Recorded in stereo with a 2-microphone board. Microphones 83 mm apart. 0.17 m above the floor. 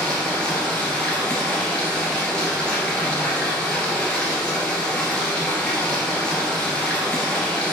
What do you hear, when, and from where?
0.0 s running water: 10° left (ahead or behind), 1.9 m